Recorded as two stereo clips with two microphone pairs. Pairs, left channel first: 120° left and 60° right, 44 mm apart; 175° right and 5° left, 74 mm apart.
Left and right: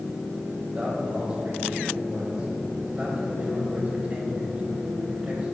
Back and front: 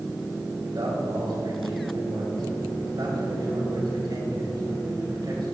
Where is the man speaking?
5° left, 5 m.